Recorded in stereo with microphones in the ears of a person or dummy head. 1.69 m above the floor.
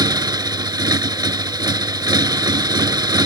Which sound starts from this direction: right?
A motorcycle, at 0.0 s.